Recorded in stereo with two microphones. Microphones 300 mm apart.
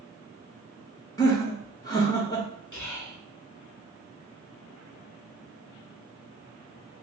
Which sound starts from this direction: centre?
Laughter, at 1.2 s.